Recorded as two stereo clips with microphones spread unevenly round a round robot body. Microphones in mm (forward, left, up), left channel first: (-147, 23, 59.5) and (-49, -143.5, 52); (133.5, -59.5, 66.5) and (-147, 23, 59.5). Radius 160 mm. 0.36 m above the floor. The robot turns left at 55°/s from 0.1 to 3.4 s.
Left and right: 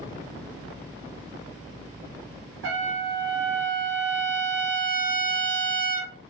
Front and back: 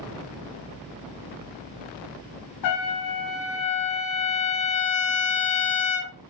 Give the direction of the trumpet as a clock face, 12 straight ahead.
1 o'clock.